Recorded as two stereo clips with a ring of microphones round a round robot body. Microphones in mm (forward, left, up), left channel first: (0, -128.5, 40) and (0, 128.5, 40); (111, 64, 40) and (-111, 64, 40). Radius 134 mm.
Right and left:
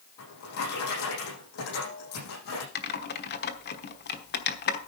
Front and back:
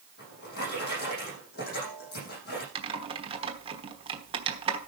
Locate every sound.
0.2 s a drawer: 55° right, 8 m
2.8 s typing on a keyboard: 120° right, 1.2 m